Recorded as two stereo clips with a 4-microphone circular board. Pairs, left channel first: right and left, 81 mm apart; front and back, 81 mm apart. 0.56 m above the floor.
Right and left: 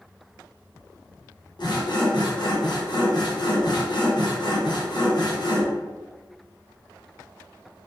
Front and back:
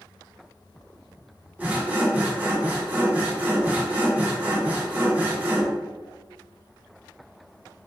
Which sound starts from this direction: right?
Sawing, at 1.6 s.